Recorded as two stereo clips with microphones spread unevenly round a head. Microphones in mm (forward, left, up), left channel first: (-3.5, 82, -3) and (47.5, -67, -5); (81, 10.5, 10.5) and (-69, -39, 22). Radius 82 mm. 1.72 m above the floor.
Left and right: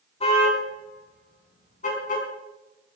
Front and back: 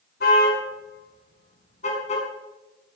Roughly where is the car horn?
Ahead left.